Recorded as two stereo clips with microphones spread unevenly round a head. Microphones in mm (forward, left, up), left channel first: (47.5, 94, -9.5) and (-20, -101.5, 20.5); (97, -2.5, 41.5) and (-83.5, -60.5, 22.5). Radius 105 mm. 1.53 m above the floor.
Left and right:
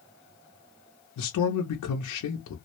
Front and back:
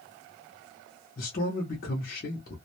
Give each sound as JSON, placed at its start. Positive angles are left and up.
{"t": 1.2, "sound": "a man speaking", "azimuth_deg": 65, "distance_m": 0.6}